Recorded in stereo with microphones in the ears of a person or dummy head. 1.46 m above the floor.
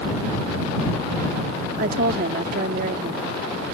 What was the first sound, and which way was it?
A woman speaking, 55° right (ahead or behind).